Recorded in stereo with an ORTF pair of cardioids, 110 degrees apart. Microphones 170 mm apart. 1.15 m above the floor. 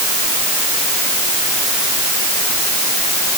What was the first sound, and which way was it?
Only background noise.